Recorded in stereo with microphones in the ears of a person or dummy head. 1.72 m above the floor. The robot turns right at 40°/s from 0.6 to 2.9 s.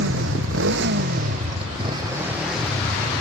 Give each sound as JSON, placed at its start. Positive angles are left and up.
{"t": 0.0, "sound": "a motorcycle", "side_deg": -80}